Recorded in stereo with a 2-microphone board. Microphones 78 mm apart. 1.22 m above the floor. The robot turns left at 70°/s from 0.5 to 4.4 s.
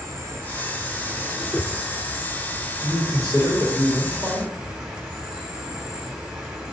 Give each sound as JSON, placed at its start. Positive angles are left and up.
{"t": 0.0, "sound": "an insect", "azimuth_deg": -105, "distance_m": 0.7}
{"t": 1.4, "sound": "a whoosh", "side_deg": 30, "distance_m": 0.8}
{"t": 2.8, "sound": "a man speaking", "azimuth_deg": -165, "distance_m": 1.8}